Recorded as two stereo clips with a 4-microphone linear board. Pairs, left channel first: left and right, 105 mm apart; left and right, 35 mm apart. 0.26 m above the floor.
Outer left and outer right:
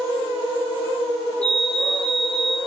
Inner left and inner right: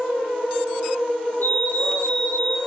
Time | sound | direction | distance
1.4 | a fire alarm | 75° left (ahead or behind) | 8 m